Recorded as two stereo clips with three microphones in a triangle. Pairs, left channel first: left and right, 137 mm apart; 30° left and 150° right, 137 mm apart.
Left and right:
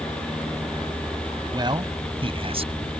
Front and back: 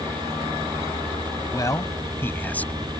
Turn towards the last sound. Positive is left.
turn(degrees=-55)